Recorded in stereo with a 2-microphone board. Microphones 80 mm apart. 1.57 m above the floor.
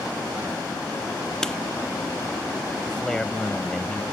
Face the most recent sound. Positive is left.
turn(degrees=10)  # may be behind; listen again after turning